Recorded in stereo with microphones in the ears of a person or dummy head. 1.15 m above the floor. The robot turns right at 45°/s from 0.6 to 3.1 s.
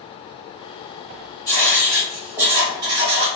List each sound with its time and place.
1.5 s writing: 150° left, 0.7 m; by 3.3 s 135° right, 0.7 m